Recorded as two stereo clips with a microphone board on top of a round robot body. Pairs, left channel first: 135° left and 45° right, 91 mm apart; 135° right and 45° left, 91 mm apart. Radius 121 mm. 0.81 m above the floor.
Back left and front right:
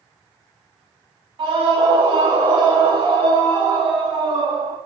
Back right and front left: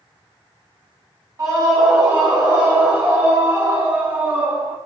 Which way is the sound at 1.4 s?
10° right.